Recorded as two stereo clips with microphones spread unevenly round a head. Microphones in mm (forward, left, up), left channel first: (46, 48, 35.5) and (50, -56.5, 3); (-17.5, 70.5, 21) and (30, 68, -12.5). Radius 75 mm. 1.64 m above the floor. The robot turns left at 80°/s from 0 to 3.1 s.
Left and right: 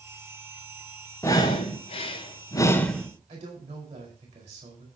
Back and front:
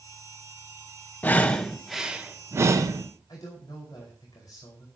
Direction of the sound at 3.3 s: 125° right.